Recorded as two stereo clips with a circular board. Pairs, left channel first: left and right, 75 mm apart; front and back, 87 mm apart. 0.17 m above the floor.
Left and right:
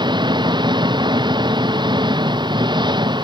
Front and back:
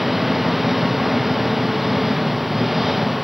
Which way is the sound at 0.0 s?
90° right.